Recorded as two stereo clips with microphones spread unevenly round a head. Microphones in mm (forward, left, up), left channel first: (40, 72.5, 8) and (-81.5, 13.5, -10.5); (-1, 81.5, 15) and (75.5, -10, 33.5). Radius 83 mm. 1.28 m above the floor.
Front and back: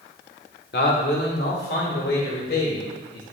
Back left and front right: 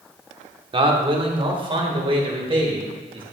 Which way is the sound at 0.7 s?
5° right.